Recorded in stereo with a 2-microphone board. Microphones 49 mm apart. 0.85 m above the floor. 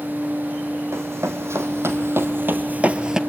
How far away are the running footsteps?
About 2.5 m.